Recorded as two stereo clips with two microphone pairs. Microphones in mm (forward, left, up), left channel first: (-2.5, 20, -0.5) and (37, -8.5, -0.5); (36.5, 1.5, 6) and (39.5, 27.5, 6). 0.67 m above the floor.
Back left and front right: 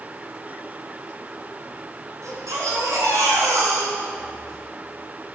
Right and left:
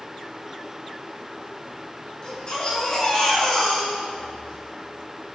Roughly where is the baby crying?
Ahead right.